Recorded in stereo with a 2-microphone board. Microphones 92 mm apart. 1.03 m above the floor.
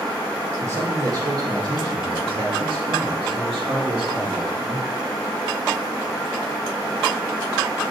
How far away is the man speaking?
About 1.6 m.